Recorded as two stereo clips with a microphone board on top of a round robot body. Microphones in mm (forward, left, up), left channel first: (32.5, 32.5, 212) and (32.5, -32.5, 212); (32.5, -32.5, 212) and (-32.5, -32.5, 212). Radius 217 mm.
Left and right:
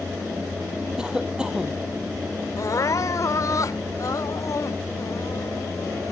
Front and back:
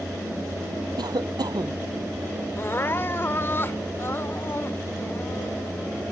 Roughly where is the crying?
Ahead left.